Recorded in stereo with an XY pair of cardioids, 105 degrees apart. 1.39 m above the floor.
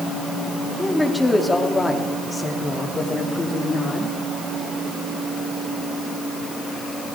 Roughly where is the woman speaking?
Ahead.